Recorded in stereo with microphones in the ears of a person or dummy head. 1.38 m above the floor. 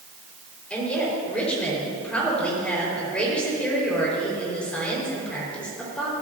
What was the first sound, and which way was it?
A woman speaking, 5° left (ahead or behind).